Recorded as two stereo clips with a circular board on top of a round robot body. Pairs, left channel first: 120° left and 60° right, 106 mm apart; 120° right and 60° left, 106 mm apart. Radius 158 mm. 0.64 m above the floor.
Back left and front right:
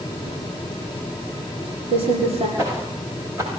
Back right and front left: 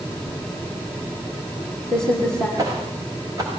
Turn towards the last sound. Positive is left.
turn(degrees=5)